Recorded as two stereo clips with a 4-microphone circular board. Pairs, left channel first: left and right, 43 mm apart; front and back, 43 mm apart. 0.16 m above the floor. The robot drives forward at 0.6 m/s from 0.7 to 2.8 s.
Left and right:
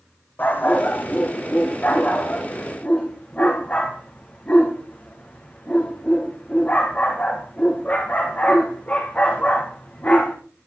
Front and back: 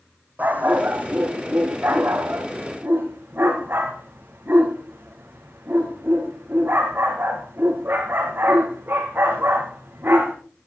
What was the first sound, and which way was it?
A dog barking, 130° left.